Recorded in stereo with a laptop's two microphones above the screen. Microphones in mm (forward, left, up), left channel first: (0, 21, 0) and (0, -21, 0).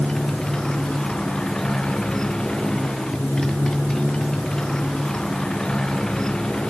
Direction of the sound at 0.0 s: 20° left (ahead or behind).